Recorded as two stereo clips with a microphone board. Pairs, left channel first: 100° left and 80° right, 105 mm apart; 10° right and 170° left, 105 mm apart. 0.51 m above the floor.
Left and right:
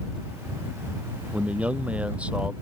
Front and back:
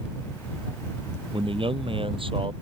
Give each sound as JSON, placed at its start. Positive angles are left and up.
{"t": 1.3, "sound": "a man speaking", "azimuth_deg": -155}